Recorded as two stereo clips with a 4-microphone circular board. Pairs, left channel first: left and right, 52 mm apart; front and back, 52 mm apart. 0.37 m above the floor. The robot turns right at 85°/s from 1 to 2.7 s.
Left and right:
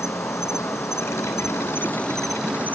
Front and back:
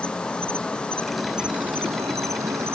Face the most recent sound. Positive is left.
turn(degrees=-145)